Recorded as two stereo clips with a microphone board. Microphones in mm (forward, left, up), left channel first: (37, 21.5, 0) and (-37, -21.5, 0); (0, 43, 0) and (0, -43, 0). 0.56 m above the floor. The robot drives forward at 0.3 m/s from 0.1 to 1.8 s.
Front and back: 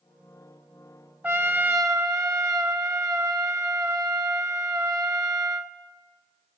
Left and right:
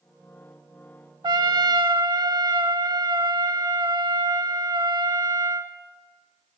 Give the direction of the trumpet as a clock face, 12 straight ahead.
3 o'clock.